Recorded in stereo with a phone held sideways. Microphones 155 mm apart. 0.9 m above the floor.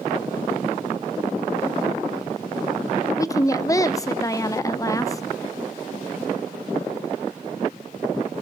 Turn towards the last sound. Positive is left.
turn(degrees=20)  # may be behind; listen again after turning